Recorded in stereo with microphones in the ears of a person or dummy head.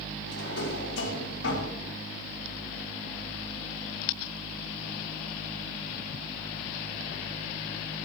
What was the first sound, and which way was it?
A drawer, 85° left.